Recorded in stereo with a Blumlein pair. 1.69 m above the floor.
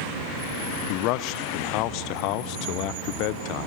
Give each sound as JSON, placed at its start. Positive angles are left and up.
{"t": 0.9, "sound": "a man speaking", "azimuth_deg": 40, "distance_m": 0.7}